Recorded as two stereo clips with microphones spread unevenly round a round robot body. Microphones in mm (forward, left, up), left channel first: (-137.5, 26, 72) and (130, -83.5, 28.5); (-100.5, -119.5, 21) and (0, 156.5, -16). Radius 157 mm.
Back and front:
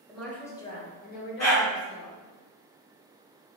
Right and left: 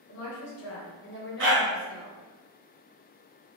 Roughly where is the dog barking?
Left.